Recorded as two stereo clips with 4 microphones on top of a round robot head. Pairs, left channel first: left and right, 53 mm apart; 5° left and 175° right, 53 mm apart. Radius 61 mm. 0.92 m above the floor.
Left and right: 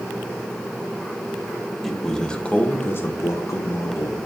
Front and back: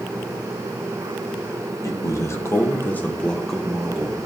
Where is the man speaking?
5° left, 1.1 m; by 4.2 s 110° left, 1.1 m.